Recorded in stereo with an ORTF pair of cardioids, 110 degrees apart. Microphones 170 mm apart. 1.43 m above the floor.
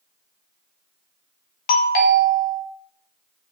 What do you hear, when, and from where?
1.7 s a doorbell: 65° left, 0.7 m